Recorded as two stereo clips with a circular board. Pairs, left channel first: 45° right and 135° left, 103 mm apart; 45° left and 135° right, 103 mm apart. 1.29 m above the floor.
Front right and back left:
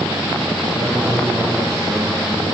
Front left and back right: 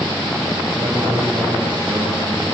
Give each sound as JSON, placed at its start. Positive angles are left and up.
{"t": 0.7, "sound": "a man speaking", "azimuth_deg": -160, "distance_m": 5.0}